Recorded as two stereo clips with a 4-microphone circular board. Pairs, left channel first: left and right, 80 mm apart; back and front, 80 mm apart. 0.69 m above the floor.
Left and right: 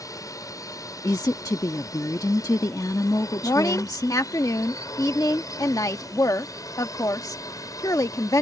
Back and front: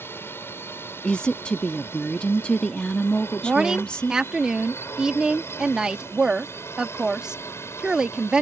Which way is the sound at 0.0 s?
125° left.